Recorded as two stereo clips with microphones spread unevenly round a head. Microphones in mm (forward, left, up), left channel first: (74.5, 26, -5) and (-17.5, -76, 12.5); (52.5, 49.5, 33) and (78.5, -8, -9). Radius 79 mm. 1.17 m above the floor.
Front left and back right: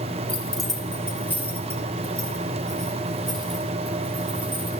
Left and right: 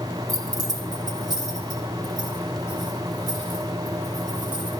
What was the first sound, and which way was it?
Keys jangling, 35° right.